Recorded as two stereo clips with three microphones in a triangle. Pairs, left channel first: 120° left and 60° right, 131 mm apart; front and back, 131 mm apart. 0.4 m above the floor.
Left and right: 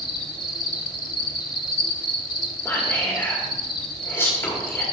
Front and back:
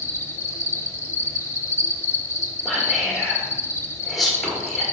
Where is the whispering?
90° left, 1.2 m.